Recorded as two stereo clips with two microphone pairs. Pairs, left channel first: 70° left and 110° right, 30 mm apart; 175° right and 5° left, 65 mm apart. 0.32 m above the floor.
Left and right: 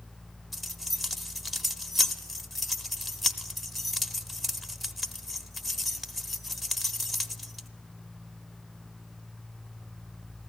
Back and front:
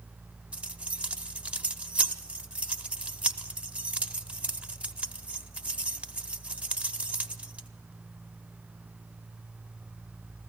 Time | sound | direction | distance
0.5 | keys jangling | 5° right | 0.6 m